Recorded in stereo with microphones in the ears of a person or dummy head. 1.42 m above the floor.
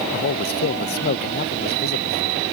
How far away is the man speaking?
About 0.8 m.